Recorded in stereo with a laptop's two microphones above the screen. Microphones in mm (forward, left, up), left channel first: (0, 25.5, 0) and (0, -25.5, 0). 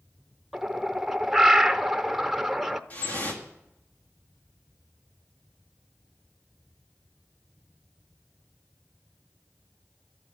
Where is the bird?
Centre (ahead or behind), 0.6 m.